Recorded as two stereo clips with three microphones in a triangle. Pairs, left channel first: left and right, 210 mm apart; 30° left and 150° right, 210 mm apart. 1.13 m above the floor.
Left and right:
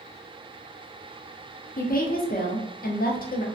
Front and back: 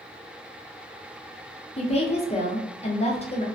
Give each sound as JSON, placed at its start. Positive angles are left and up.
{"t": 1.8, "sound": "a woman speaking", "azimuth_deg": 75, "distance_m": 0.5}